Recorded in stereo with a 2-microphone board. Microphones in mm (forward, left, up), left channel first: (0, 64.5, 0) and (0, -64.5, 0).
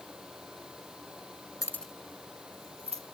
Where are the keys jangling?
25° left (ahead or behind), 0.8 m; by 3.0 s 55° right (ahead or behind), 1.8 m.